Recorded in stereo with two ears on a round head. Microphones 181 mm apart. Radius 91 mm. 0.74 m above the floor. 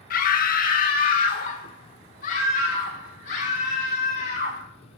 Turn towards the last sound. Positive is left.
turn(degrees=40)  # may be behind; listen again after turning